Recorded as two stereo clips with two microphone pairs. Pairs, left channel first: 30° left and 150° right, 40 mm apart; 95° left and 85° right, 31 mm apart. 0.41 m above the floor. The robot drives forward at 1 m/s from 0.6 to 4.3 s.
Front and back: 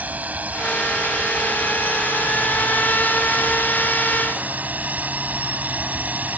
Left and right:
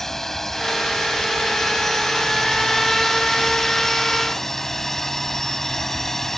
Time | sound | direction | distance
0.0 | a drone | 175° left | ?